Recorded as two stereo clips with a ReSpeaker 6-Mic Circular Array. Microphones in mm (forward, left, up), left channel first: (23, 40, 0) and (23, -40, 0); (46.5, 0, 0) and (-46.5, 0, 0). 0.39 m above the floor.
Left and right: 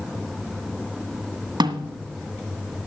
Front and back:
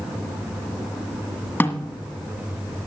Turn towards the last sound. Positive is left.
turn(degrees=-70)